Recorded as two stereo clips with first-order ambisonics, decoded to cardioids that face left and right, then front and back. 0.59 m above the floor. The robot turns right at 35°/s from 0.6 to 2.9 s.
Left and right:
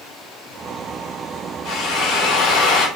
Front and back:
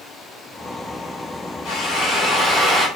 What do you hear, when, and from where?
1.6 s a drill: 45° left, 3 m; by 2.9 s 85° left, 3 m